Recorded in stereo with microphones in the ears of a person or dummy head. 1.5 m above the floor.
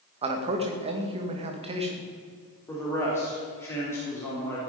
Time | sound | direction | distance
0.2 | a man speaking | 25° right (ahead or behind) | 2 m
2.7 | a man speaking | 20° left (ahead or behind) | 4 m